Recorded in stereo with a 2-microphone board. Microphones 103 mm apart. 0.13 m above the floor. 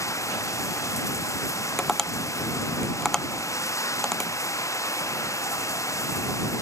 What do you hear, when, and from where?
0.0 s running water: 30° left (ahead or behind)
1.8 s tapping: 5° left (ahead or behind)